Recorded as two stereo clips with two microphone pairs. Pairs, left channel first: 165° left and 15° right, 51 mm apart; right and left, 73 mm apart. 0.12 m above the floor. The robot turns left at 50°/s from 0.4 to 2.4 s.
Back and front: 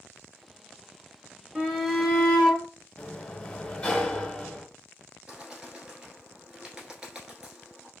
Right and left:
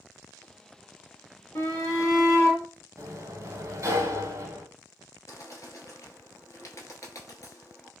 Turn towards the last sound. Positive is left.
turn(degrees=-90)